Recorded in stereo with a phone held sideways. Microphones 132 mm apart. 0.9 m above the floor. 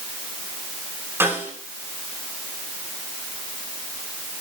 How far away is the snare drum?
About 6.5 m.